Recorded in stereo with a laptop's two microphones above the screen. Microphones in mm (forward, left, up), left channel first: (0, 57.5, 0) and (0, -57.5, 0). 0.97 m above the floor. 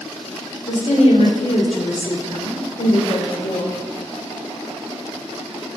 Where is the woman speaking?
65° left (ahead or behind), 3 m.